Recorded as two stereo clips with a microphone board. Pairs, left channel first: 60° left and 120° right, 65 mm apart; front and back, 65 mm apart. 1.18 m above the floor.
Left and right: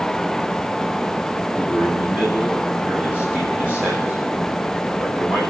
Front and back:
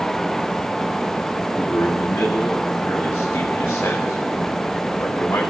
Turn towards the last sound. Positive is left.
turn(degrees=-60)